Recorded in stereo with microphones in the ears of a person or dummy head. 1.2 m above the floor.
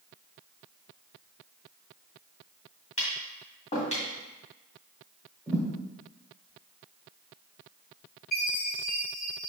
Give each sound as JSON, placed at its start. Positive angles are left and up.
{"t": 3.0, "sound": "tapping", "side_deg": 35, "distance_m": 1.9}
{"t": 5.5, "sound": "a thud", "side_deg": 5, "distance_m": 1.6}
{"t": 8.3, "sound": "a chime", "side_deg": 45, "distance_m": 2.5}